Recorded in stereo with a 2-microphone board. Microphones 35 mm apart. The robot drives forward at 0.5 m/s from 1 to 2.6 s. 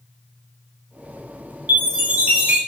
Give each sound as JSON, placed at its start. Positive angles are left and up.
{"t": 1.7, "sound": "a chime", "side_deg": -55, "distance_m": 1.1}